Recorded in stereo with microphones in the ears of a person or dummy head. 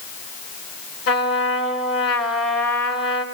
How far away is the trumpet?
About 3.5 m.